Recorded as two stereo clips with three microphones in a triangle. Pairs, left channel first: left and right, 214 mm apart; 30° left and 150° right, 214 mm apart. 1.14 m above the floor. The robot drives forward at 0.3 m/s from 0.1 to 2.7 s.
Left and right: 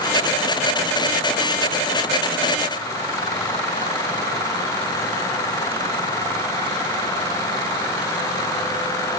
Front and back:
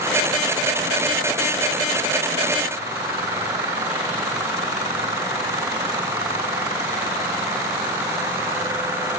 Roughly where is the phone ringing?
No phone ringing in this recording.